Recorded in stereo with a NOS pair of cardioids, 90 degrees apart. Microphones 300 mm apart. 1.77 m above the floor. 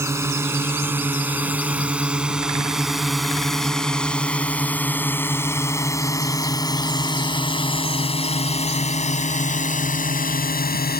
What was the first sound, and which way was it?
A drone, 10° right.